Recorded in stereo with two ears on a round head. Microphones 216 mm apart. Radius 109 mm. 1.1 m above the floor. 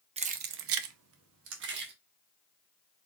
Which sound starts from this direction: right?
Keys jangling, at 0.2 s.